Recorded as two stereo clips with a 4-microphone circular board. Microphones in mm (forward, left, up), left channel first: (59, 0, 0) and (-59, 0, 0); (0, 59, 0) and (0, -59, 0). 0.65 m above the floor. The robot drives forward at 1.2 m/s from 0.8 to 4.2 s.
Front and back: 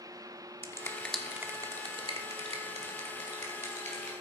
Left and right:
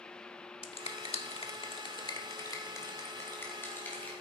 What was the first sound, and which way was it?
A finger snap, 65° left.